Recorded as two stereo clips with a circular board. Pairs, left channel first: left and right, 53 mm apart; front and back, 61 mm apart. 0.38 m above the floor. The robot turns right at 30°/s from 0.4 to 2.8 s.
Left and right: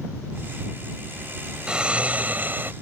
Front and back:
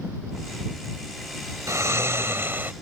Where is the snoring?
160° right; by 2.7 s 130° right.